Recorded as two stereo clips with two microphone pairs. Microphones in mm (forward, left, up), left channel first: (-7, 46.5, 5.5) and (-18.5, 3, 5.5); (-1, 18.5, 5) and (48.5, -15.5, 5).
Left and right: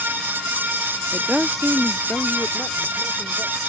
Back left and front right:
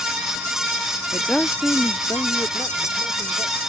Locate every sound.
1.1 s a woman speaking: 125° right; by 3.6 s 100° left